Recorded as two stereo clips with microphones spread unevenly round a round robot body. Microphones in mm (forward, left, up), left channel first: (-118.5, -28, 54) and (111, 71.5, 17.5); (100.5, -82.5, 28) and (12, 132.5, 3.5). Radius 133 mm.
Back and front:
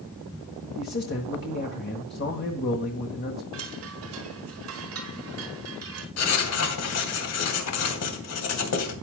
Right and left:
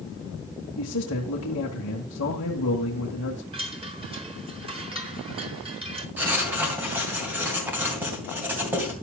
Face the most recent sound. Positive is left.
turn(degrees=-170)